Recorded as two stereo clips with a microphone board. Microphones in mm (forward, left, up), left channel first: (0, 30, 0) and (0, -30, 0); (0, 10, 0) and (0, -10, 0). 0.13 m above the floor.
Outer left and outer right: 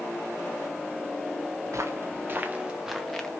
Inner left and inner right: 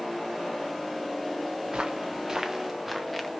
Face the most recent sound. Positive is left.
turn(degrees=10)  # may be behind; listen again after turning